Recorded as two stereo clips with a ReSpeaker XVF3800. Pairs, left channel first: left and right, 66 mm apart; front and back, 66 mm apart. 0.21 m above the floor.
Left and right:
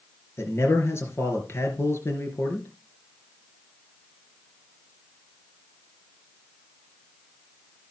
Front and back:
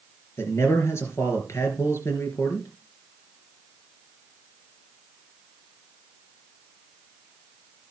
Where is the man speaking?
45° left, 3.5 m.